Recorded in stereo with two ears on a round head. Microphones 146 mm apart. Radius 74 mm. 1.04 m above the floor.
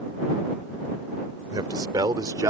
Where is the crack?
I don't hear a crack.